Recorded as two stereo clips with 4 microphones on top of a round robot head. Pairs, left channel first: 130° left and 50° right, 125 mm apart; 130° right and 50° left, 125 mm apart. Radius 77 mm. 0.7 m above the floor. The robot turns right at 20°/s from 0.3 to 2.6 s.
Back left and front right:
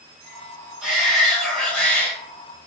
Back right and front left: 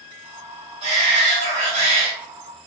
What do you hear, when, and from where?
0.8 s a shout: 35° left, 1.7 m; by 2.1 s 60° left, 1.7 m